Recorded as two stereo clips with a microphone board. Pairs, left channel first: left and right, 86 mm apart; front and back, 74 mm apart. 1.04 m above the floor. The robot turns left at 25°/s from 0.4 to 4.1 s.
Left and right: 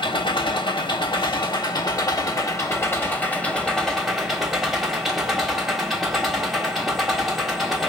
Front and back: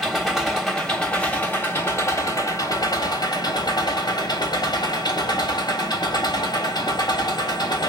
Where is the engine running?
90° left, 1.3 m; by 7.9 s straight ahead, 1.3 m.